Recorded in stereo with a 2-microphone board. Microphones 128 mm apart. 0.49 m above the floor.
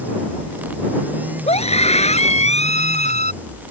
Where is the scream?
55° left (ahead or behind); by 3.3 s 65° left (ahead or behind).